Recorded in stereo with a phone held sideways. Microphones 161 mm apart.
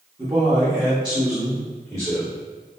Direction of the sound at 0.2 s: 25° right (ahead or behind).